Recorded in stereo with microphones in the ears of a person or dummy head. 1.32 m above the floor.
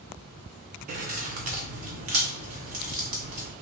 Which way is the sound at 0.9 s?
35° right (ahead or behind).